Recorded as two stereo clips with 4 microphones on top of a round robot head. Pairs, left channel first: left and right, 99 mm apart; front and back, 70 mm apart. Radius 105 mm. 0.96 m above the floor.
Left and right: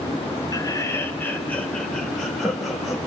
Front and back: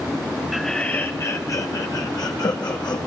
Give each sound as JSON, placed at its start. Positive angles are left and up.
{"t": 0.5, "sound": "laughter", "azimuth_deg": 95, "distance_m": 1.0}